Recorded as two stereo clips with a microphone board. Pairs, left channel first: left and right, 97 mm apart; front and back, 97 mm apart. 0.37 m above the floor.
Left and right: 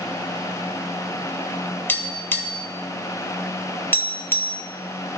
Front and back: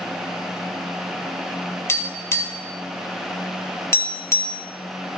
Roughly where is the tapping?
Ahead left.